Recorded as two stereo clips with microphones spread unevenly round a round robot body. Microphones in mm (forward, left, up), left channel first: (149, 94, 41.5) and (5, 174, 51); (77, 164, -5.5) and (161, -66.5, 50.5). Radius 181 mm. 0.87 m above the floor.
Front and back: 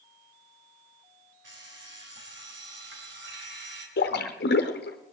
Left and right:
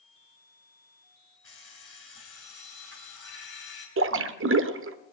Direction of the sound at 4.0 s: 60° right.